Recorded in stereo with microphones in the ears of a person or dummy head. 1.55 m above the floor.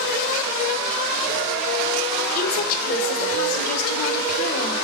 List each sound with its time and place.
2.4 s a woman speaking: 50° left (ahead or behind), 2 m